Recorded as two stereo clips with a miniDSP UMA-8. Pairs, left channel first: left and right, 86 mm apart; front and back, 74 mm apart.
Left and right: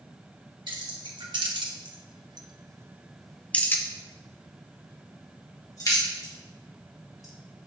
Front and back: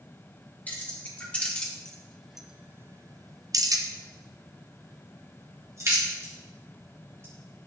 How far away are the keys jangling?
About 1.6 m.